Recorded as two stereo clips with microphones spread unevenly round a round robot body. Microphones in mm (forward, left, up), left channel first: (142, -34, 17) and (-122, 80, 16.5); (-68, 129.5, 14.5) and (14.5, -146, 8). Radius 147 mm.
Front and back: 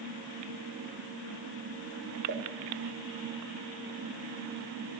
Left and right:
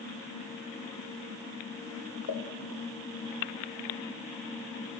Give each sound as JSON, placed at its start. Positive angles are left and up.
{"t": 2.3, "sound": "a pop", "azimuth_deg": 120, "distance_m": 5.5}